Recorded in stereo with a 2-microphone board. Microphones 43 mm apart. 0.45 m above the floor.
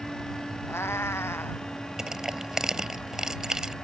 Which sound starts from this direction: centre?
Crushing, at 2.0 s.